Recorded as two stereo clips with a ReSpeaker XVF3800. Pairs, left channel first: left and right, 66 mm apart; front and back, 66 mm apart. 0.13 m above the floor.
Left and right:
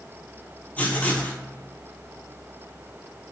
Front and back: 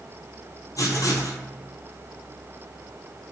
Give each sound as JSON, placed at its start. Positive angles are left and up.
{"t": 0.8, "sound": "writing", "azimuth_deg": 25, "distance_m": 0.6}